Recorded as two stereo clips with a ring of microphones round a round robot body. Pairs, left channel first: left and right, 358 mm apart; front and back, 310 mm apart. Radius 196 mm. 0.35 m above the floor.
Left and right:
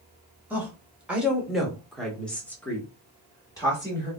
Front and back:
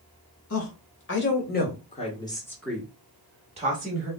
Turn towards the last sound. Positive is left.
turn(degrees=160)